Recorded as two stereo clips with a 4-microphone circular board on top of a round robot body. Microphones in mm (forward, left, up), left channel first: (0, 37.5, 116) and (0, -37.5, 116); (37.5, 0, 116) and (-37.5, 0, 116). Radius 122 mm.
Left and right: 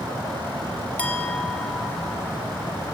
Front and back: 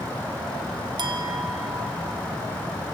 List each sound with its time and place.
1.0 s a clink: 160° left, 1.7 m